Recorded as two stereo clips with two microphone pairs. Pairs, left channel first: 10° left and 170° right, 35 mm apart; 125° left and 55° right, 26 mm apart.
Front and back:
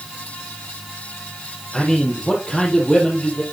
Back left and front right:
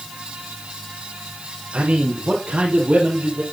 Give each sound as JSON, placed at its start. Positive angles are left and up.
{"t": 1.7, "sound": "a man speaking", "azimuth_deg": -70, "distance_m": 3.5}